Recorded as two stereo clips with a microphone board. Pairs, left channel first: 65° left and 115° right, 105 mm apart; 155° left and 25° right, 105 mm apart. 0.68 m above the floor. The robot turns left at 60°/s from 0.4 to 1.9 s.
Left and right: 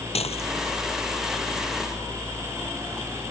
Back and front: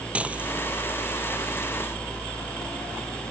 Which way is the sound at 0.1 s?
55° left.